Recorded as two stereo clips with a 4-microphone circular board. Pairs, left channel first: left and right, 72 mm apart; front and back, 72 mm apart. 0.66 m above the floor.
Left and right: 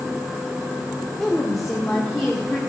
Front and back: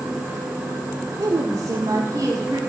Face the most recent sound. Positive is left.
turn(degrees=175)